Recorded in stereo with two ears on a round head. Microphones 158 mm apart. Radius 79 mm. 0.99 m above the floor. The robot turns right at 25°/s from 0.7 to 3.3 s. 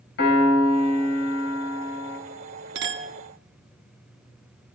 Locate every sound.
0.2 s a piano: 70° left, 4 m; by 2.2 s 105° left, 4 m
2.8 s a clink: 70° right (ahead or behind), 1.1 m; by 3.1 s 80° right, 1.1 m